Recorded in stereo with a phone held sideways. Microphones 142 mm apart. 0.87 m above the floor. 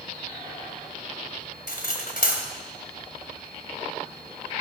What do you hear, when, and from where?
1.7 s cutlery clinking: 80° left, 2.5 m